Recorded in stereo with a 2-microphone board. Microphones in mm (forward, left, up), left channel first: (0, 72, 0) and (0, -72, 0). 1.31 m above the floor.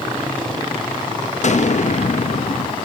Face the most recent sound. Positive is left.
turn(degrees=55)  # may be behind; listen again after turning